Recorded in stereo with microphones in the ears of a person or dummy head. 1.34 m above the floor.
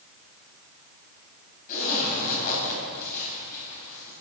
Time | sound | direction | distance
1.7 | a zipper | 50° left (ahead or behind) | 4 m